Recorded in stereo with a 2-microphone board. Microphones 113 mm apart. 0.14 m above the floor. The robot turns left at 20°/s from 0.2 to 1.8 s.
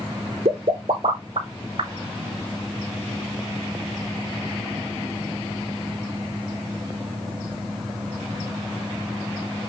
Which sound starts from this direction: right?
A pop, at 0.5 s.